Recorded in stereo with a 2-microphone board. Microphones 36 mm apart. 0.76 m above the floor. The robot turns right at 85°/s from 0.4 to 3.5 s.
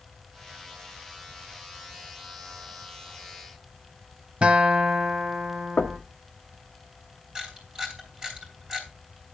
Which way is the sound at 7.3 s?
20° right (ahead or behind).